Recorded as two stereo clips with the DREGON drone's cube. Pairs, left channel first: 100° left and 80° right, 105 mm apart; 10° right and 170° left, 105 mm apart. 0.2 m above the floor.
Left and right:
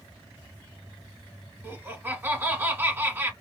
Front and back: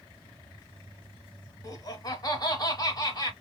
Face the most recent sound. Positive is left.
turn(degrees=-25)